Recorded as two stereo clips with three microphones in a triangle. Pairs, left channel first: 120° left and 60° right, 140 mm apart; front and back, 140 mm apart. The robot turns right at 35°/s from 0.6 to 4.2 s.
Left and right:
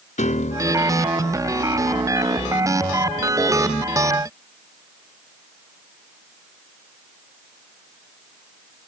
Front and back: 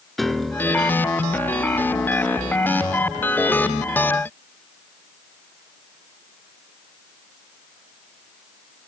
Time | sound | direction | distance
0.2 | a piano | 90° left | 0.8 m